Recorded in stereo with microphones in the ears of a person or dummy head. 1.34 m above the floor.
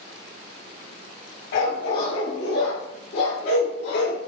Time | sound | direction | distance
1.5 | a dog barking | 60° left (ahead or behind) | 2 m